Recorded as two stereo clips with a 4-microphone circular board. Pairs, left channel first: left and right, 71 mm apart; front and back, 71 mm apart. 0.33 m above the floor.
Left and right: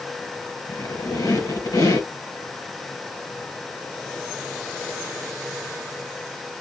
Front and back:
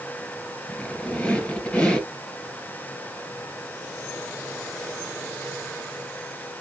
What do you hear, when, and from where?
0.7 s a squeak: 75° left, 2 m